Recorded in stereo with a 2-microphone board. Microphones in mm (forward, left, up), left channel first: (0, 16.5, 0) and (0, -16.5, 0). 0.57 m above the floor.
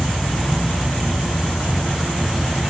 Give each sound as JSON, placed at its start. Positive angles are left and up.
{"t": 0.0, "sound": "an insect", "side_deg": 75, "distance_m": 2.5}